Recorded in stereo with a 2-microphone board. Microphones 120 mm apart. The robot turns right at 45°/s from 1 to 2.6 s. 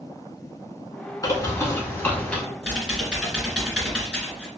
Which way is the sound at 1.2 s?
115° left.